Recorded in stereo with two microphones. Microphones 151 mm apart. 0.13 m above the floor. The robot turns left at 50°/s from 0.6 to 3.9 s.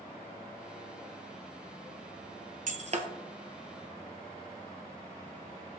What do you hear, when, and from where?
2.7 s breaking glass: 60° right (ahead or behind), 1.1 m; by 3.1 s 45° right (ahead or behind), 1.1 m